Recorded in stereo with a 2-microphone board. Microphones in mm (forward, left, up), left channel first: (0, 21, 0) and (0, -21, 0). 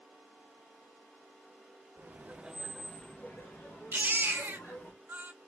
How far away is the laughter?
About 0.7 m.